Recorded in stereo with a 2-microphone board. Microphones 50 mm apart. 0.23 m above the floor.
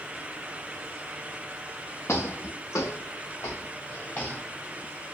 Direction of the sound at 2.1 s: 55° left (ahead or behind).